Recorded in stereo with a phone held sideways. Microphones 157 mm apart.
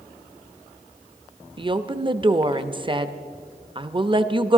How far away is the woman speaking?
About 0.6 m.